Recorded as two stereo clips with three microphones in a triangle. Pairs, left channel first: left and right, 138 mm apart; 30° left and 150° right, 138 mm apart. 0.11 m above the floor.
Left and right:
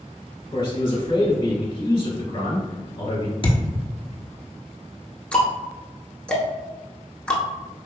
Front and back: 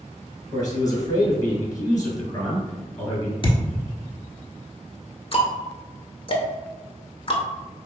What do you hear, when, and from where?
0.5 s a man speaking: 75° left, 1.3 m
3.4 s a thud: 60° left, 0.7 m
5.3 s ticking: 10° left, 0.7 m